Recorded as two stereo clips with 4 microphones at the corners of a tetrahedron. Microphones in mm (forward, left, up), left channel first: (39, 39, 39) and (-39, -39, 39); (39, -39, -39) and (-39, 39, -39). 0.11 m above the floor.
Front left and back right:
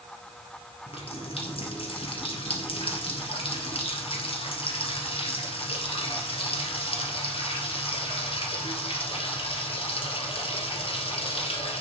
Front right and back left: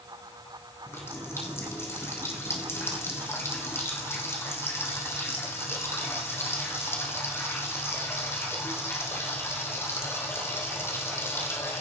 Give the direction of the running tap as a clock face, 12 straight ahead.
11 o'clock.